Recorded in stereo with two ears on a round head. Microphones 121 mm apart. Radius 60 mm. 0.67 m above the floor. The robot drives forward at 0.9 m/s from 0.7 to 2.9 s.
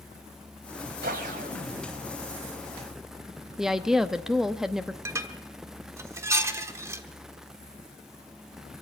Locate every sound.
1.0 s a whoosh: 75° right (ahead or behind), 1.7 m; by 2.2 s 50° right (ahead or behind), 2 m
3.6 s a woman speaking: 5° right (ahead or behind), 0.7 m
5.0 s dishes clattering: 20° right (ahead or behind), 1.2 m